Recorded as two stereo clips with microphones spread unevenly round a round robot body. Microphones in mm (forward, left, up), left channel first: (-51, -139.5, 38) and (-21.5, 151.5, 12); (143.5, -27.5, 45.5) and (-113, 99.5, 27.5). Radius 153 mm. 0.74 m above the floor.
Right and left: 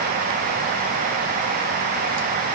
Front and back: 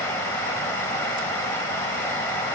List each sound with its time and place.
Only background noise.